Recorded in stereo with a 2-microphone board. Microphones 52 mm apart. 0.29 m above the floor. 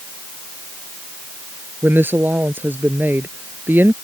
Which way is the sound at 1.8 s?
45° right (ahead or behind).